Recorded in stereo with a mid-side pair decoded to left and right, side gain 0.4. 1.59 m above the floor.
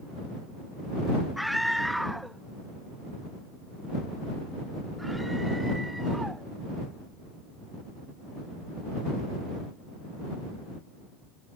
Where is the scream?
Straight ahead; by 6.5 s 10° right.